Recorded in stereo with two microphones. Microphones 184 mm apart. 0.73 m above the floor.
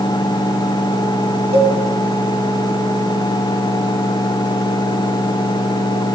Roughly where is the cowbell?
Right.